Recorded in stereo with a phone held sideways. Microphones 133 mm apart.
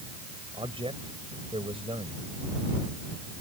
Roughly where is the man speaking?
Right.